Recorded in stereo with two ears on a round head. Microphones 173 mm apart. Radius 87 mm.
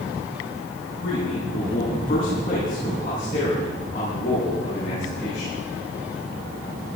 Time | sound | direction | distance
1.0 | a man speaking | 60° left (ahead or behind) | 9.5 m